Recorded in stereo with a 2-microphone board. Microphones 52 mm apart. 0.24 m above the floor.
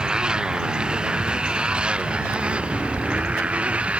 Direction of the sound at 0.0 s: 15° right (ahead or behind).